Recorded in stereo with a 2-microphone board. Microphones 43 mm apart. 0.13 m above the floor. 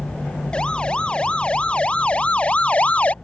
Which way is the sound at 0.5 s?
20° left (ahead or behind).